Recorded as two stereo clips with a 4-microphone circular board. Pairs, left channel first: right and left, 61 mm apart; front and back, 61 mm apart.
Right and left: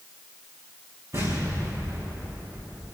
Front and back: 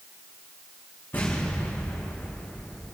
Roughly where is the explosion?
Ahead left.